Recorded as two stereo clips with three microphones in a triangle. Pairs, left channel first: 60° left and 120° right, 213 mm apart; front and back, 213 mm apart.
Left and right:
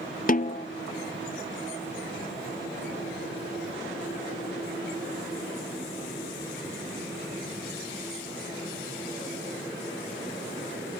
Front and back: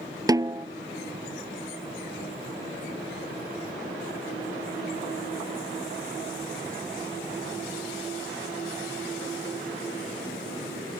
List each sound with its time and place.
0.3 s a snare drum: 105° left